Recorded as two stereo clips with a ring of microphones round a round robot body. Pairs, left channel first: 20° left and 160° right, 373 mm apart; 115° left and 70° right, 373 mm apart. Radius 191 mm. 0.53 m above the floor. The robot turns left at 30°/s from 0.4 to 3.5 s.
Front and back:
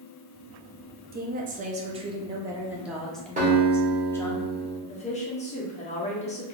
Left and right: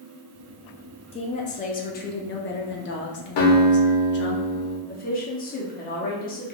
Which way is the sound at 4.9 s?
75° left.